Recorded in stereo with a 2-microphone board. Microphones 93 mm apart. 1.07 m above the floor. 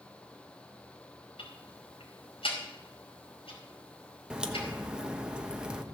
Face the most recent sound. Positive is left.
turn(degrees=-10)  # may be behind; listen again after turning